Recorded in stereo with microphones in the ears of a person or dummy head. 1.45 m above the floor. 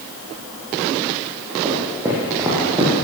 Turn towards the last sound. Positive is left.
turn(degrees=-15)  # may be behind; listen again after turning